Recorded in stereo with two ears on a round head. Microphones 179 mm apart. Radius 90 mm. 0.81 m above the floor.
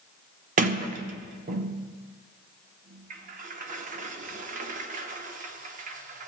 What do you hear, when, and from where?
0.6 s a sliding door: 40° right (ahead or behind), 0.7 m